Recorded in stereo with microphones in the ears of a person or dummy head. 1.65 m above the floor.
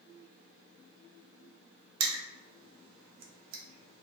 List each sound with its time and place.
2.0 s crushing: 80° right, 0.7 m